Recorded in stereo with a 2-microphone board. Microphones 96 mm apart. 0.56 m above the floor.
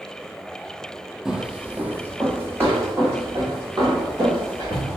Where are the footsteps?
5° right (ahead or behind), 0.6 m; by 5.0 s 30° right (ahead or behind), 2.5 m.